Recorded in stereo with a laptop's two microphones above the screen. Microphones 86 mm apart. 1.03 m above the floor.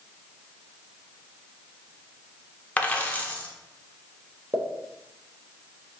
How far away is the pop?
About 0.6 m.